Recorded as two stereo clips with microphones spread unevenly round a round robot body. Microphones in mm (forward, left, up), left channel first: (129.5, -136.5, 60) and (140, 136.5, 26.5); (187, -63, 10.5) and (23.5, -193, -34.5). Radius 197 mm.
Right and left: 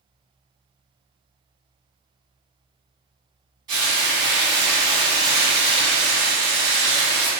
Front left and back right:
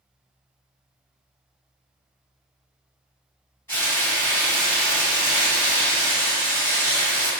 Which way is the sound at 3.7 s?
130° left.